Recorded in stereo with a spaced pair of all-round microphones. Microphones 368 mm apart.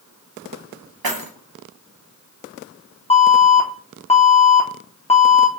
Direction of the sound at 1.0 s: 75° right (ahead or behind).